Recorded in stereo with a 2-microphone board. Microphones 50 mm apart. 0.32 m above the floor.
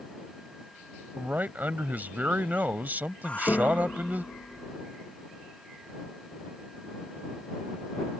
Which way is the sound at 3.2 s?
25° left (ahead or behind).